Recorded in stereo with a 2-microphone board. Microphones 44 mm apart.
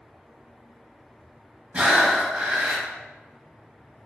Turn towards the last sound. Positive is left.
turn(degrees=-30)  # may be behind; listen again after turning